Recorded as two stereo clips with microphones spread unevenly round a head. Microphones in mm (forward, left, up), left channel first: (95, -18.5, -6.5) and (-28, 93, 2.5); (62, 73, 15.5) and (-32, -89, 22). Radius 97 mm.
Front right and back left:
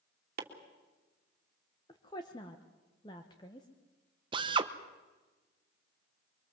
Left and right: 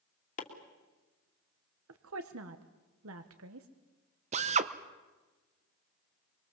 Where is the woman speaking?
115° right, 1.3 m.